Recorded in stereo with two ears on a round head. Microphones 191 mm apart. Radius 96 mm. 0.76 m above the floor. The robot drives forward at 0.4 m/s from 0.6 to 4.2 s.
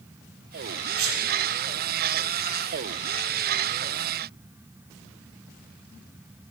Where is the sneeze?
70° right (ahead or behind), 3.5 m.